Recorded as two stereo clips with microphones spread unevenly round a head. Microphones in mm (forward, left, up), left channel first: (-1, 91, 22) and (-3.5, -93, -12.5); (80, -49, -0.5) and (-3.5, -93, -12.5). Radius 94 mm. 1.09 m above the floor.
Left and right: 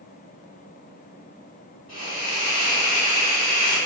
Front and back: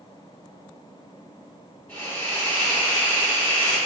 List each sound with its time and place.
1.9 s a hiss: 75° left, 1.7 m